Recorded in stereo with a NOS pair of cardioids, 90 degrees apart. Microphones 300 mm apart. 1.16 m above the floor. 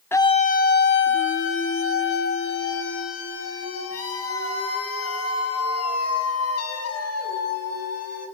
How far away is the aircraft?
I don't hear an aircraft.